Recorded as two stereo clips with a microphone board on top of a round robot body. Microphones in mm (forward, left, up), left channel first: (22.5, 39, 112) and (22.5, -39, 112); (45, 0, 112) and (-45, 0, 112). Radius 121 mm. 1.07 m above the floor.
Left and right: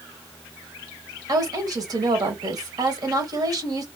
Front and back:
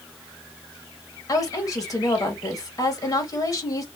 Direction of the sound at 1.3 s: 55° right.